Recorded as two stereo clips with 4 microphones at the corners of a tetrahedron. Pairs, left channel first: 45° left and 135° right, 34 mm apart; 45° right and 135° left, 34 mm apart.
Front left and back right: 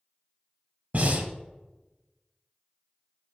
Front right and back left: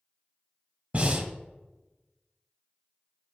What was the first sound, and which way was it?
Breathing, 170° right.